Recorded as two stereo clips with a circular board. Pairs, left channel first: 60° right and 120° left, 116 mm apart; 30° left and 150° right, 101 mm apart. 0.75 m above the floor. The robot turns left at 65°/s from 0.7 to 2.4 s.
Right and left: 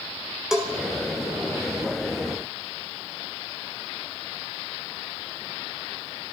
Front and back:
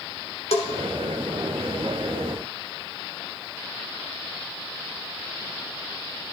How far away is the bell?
About 1.2 m.